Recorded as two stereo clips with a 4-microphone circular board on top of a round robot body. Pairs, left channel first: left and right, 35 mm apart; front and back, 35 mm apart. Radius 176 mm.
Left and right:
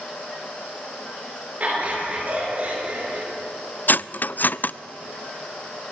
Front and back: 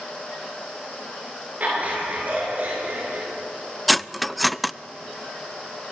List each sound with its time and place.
1.6 s laughter: 135° right, 8.5 m; by 3.3 s 140° right, 7 m
3.9 s cutlery clinking: 90° left, 0.5 m